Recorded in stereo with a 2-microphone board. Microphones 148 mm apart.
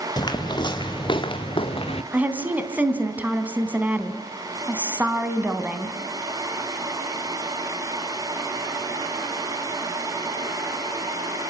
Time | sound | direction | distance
0.2 | footsteps | 30° left (ahead or behind) | 2.5 m
2.1 | a woman speaking | 10° right (ahead or behind) | 3 m